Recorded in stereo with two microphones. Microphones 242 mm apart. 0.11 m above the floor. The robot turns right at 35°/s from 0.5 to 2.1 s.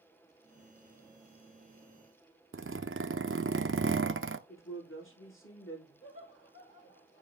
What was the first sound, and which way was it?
A zipper, 65° right (ahead or behind).